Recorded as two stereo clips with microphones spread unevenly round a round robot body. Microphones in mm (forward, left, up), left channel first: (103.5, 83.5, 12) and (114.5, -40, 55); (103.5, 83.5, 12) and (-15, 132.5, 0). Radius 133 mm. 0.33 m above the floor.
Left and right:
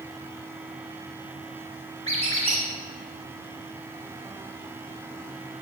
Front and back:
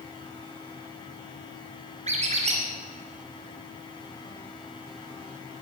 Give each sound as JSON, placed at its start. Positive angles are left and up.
{"t": 2.1, "sound": "a squeak", "azimuth_deg": -150, "distance_m": 1.9}